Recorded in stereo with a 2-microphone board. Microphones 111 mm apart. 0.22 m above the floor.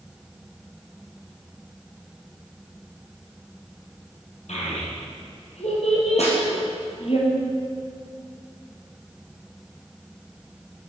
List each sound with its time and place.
4.5 s a child speaking: 80° left, 4.5 m; by 7.2 s 60° left (ahead or behind), 3.5 m
6.2 s a snare drum: 80° left, 3.5 m